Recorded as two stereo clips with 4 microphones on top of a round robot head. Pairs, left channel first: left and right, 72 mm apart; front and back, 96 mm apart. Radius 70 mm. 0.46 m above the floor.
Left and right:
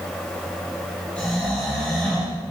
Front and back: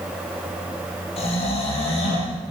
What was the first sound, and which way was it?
Snoring, 10° left.